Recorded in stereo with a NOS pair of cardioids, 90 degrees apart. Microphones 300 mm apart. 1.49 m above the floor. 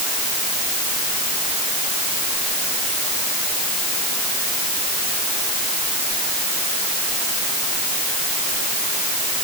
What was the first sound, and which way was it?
Only background noise.